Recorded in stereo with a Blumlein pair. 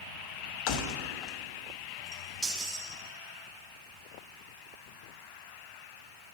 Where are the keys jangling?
45° left, 0.9 m; by 2.9 s 25° right, 2.5 m.